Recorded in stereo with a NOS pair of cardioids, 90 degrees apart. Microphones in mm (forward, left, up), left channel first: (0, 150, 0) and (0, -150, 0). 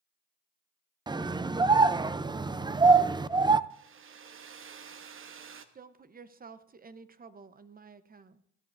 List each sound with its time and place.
1.1 s a scream: 15° right, 0.5 m
3.7 s a hair dryer: 45° right, 1.1 m
5.8 s a woman speaking: 30° right, 0.9 m